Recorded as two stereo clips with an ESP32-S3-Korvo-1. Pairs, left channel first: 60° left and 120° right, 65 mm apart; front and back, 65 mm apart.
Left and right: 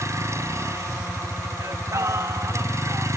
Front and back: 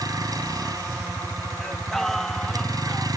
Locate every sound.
0.0 s a vehicle: 160° right
1.6 s singing: 85° right